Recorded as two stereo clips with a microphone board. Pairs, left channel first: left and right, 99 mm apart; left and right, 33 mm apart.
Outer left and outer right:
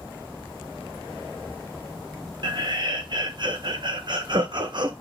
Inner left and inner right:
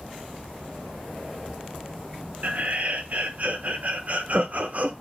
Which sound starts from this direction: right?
Laughter, at 2.4 s.